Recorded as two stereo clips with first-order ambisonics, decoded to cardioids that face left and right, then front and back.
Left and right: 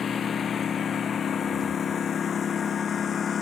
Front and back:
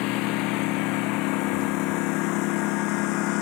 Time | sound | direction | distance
0.0 | a lawn mower | 25° left | ?